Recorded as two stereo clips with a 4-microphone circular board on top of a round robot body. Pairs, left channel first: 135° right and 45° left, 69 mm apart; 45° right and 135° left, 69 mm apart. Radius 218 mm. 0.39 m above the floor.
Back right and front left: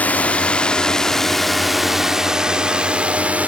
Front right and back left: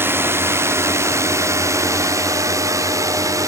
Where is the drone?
170° left; by 3.5 s 110° left.